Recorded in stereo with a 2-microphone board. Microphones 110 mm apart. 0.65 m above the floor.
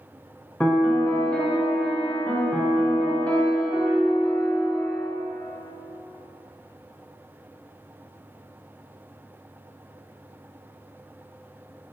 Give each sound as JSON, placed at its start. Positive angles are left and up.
{"t": 0.6, "sound": "a piano", "side_deg": 10, "distance_m": 0.5}